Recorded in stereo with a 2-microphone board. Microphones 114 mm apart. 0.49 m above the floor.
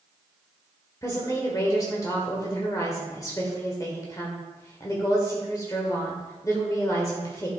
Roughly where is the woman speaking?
Left.